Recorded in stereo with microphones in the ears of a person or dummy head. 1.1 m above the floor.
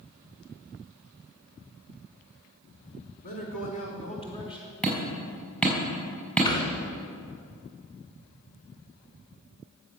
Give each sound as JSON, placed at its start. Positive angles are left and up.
{"t": 3.2, "sound": "a man speaking", "side_deg": 50, "distance_m": 4.0}
{"t": 4.8, "sound": "hammering", "side_deg": 5, "distance_m": 4.0}
{"t": 6.5, "sound": "a thud", "side_deg": 25, "distance_m": 2.5}